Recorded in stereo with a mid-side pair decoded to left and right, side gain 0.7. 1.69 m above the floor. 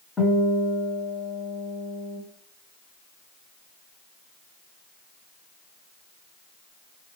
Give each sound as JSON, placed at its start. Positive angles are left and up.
{"t": 0.2, "sound": "a guitar", "azimuth_deg": 20, "distance_m": 2.0}